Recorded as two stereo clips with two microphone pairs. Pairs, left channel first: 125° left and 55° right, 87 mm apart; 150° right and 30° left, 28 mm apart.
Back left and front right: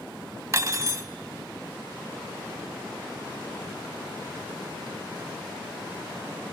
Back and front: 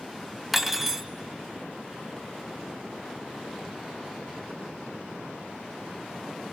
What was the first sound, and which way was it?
Cutlery clinking, 45° right.